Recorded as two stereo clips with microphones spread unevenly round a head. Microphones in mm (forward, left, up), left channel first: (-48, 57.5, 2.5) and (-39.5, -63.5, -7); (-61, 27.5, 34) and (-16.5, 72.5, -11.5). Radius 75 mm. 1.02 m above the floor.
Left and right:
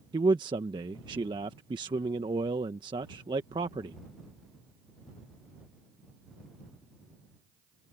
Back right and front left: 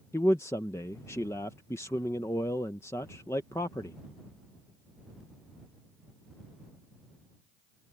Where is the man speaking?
50° right.